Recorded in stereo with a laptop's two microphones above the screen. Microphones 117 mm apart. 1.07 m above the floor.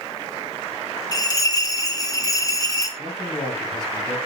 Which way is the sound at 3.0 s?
40° left (ahead or behind).